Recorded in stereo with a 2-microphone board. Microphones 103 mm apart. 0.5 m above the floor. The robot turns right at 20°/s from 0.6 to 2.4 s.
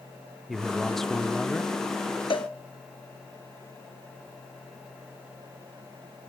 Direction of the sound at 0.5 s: Centre (ahead or behind).